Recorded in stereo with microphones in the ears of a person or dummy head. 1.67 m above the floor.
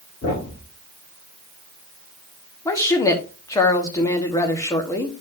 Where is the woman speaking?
10° left (ahead or behind), 1.2 m.